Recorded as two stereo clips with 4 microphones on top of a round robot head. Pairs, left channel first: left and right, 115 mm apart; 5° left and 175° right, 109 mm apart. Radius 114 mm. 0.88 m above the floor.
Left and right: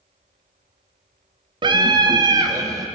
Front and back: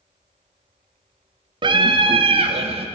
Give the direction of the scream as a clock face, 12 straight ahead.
5 o'clock.